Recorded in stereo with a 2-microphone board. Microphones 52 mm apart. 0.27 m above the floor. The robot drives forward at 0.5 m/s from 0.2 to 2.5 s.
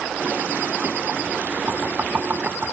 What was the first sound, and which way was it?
Knocking, 35° right (ahead or behind).